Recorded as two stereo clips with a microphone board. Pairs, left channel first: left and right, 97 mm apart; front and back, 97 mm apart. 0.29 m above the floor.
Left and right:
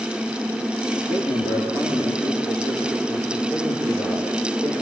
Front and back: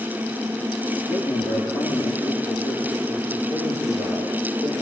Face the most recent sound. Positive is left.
turn(degrees=45)